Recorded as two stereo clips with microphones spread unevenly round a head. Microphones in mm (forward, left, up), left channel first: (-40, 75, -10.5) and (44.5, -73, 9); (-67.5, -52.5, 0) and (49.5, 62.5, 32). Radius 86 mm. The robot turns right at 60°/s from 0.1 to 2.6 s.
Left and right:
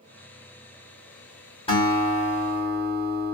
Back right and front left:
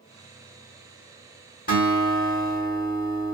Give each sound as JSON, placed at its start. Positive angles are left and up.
{"t": 1.7, "sound": "a guitar", "azimuth_deg": -175, "distance_m": 2.0}